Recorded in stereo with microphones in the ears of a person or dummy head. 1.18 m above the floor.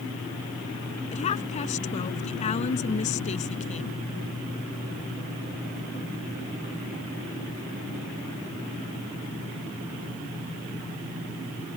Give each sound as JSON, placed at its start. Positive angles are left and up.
{"t": 1.1, "sound": "a woman speaking", "side_deg": 40}